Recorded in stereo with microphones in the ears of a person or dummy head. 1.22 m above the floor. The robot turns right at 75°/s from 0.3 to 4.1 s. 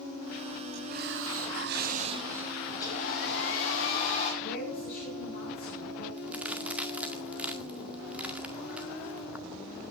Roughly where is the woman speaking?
Left.